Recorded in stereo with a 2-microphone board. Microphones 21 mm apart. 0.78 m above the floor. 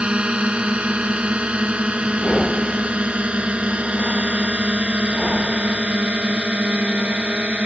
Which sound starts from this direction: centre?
Breathing, at 2.2 s.